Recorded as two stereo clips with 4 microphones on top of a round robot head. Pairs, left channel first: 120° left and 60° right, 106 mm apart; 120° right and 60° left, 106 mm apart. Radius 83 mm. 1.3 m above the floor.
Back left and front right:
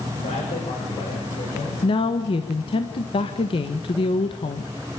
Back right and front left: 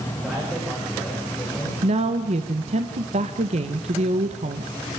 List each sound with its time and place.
0.2 s a man speaking: 145° left, 6.5 m; by 1.7 s 160° left, 7 m
1.8 s a woman speaking: 80° left, 1.4 m